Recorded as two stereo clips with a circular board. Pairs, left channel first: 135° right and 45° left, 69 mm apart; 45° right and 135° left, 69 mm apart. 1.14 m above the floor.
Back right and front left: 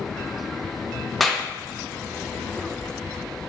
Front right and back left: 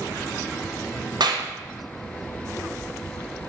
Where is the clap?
135° left, 0.6 m.